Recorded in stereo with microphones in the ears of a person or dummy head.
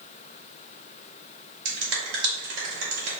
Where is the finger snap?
65° right (ahead or behind), 2.0 m.